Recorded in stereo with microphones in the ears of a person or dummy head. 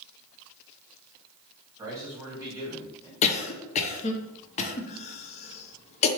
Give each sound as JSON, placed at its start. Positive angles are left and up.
{"t": 1.8, "sound": "a man speaking", "side_deg": -15, "distance_m": 2.0}
{"t": 3.2, "sound": "a cough", "side_deg": 35, "distance_m": 0.6}